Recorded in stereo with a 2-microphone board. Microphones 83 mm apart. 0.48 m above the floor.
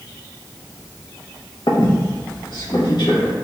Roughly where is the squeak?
Left.